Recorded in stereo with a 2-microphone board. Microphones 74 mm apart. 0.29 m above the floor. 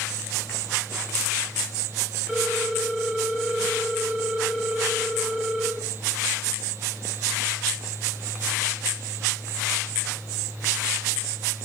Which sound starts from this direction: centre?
A ringtone, at 2.3 s.